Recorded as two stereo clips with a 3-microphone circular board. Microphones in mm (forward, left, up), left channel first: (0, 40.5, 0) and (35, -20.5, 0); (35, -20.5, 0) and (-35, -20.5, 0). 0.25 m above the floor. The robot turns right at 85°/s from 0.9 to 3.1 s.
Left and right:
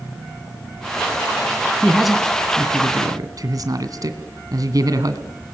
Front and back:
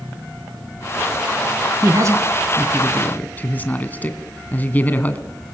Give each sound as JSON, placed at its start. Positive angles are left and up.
{"t": 1.8, "sound": "a man speaking", "azimuth_deg": -170, "distance_m": 1.9}